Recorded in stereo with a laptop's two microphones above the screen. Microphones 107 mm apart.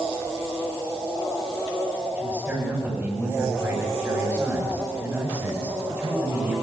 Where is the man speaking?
20° right (ahead or behind), 7 m.